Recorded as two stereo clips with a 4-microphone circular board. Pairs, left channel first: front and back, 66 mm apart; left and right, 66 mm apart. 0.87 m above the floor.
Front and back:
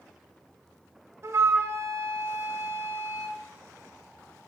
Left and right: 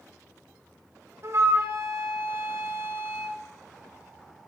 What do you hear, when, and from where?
1.2 s a flute: 135° right, 0.7 m